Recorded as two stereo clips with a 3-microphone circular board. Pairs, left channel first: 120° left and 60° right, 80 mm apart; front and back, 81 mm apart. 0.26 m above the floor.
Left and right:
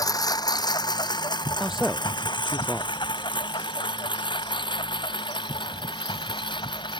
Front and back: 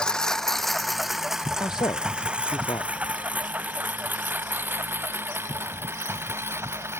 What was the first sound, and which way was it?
A lawn mower, 80° left.